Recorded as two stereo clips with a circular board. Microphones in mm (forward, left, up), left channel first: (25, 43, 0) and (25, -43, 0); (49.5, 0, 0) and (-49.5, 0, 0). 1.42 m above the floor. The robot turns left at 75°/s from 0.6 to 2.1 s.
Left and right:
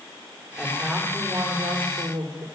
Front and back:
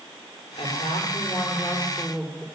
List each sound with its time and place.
0.6 s a woman speaking: 15° left, 3.5 m; by 2.5 s 100° right, 3.5 m